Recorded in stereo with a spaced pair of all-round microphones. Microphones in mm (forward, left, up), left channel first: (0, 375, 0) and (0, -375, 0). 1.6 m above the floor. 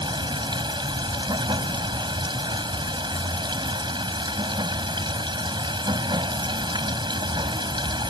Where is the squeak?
I don't hear a squeak.